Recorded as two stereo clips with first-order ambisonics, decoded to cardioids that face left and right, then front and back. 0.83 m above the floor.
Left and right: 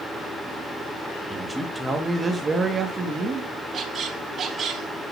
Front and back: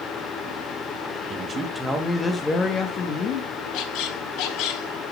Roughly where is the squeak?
Ahead right.